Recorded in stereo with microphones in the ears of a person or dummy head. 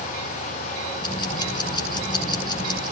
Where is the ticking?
25° left (ahead or behind), 3.5 m.